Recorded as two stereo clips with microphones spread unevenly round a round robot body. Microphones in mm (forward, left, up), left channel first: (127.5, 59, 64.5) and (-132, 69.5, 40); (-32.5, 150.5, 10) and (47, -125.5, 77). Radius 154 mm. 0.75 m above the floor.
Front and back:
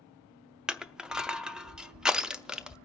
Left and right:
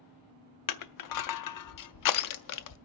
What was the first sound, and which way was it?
Crushing, 90° left.